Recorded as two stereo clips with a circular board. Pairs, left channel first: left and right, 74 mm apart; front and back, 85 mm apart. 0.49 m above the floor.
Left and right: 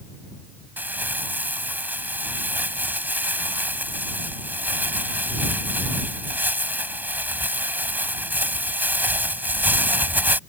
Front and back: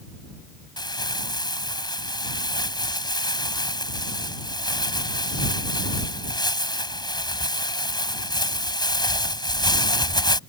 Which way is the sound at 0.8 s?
25° right.